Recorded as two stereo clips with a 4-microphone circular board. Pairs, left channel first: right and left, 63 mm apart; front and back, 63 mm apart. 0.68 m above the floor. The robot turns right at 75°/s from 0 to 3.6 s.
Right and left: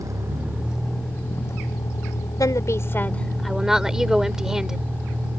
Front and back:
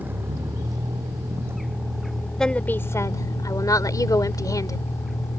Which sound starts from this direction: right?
A woman speaking, at 2.4 s.